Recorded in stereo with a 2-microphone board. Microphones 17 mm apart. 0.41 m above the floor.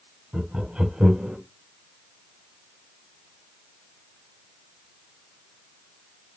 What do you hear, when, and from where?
0.3 s laughter: 65° right (ahead or behind), 2.5 m